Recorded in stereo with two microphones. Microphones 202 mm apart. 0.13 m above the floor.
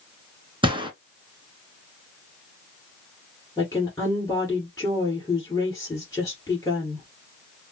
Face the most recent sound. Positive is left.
turn(degrees=15)  # may be behind; listen again after turning